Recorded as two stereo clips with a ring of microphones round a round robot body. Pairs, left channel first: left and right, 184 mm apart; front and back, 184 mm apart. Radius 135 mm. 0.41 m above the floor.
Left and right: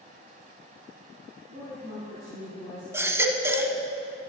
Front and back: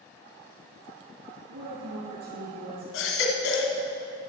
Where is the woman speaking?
155° right, 4.5 m.